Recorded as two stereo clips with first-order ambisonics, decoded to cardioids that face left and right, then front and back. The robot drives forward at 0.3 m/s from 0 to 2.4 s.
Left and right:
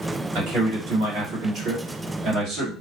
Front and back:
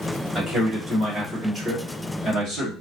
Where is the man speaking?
100° right, 1.5 m; by 2.7 s 125° right, 1.7 m.